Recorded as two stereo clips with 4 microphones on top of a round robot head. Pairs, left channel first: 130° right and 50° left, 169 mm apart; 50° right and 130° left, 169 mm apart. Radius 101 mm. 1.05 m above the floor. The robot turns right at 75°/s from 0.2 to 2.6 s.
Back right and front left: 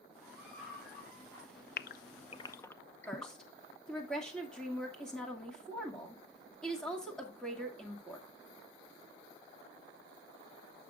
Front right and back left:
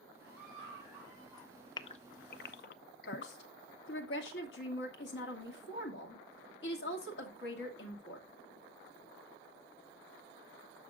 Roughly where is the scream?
Behind left.